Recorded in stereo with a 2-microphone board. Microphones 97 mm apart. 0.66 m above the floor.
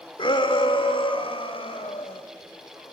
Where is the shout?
55° left (ahead or behind), 2 m; by 2.2 s 65° left (ahead or behind), 4.5 m.